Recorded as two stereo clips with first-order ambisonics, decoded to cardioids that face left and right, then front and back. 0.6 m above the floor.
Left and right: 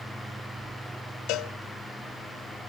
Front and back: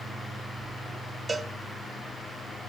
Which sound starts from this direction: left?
A cowbell, at 1.3 s.